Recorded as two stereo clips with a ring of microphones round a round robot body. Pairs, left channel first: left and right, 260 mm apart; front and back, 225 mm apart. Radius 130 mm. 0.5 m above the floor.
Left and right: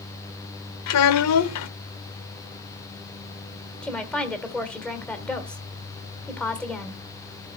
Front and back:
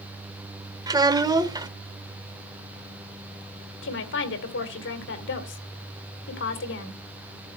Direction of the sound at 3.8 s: 5° left.